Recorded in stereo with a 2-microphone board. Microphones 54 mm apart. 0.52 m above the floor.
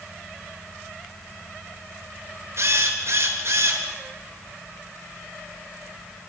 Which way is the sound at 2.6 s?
55° right (ahead or behind).